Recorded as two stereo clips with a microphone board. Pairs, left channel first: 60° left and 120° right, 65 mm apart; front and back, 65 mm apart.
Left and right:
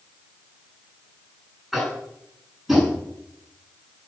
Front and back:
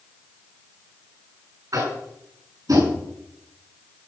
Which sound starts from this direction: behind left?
Tapping, at 1.7 s.